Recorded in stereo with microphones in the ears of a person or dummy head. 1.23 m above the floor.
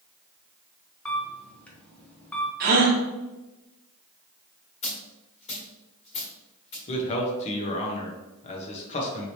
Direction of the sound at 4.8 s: 35° left (ahead or behind).